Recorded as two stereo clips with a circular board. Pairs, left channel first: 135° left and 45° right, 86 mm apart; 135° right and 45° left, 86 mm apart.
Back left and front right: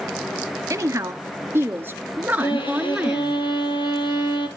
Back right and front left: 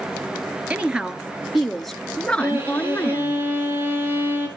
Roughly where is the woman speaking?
Ahead right.